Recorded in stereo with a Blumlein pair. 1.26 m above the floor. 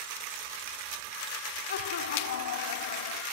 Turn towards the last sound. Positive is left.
turn(degrees=70)